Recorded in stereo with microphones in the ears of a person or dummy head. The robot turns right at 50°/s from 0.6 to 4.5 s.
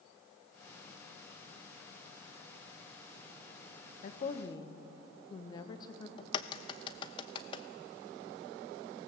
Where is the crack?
30° left (ahead or behind), 0.7 m.